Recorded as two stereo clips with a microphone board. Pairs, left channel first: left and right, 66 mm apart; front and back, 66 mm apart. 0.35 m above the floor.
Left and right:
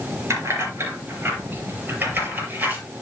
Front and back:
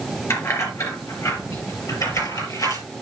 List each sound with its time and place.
0.3 s keys jangling: 45° right, 4 m; by 2.8 s 25° right, 5.5 m